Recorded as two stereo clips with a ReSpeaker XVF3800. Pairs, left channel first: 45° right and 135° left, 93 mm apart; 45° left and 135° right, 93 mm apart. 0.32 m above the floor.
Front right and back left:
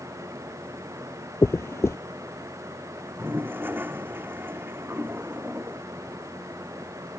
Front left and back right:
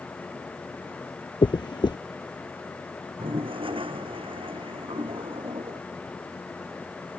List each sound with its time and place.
1.4 s a dropped coin: 15° left
3.2 s a toilet flushing: 155° right